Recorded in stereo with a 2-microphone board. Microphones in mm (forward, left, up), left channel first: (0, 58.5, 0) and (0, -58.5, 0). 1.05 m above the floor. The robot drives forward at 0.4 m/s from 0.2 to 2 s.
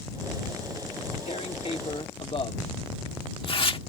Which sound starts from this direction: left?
Tearing paper, at 1.3 s.